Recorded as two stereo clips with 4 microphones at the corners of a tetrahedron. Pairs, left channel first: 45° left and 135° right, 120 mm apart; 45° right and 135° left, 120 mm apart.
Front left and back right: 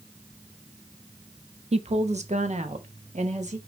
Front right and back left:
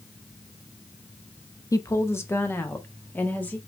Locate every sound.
1.7 s a woman speaking: 105° right, 0.6 m; by 3.6 s 120° right, 1.6 m